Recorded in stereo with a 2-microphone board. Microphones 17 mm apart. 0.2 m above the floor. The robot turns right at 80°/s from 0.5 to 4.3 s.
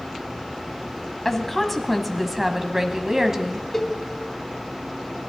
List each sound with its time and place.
1.2 s a woman speaking: 20° left (ahead or behind), 1.0 m; by 3.6 s 20° right (ahead or behind), 1.0 m
3.7 s a cowbell: 20° left (ahead or behind), 0.6 m